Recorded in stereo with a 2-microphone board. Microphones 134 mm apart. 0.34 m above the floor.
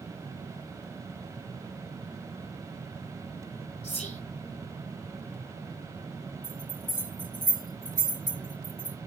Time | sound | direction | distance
3.8 | whispering | 55° left (ahead or behind) | 1.8 m
6.4 | a bell | 75° right (ahead or behind) | 3 m